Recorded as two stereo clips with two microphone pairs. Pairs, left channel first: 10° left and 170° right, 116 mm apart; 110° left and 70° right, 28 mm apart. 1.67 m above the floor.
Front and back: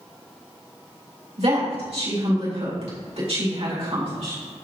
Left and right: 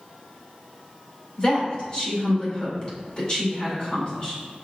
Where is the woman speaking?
165° left, 3.5 m.